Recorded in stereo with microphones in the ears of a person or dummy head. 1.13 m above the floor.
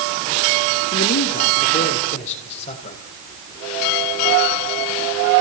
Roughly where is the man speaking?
Left.